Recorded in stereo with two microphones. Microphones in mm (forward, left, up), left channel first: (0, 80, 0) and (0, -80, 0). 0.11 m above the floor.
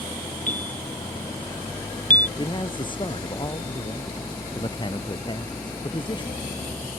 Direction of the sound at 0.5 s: 55° left (ahead or behind).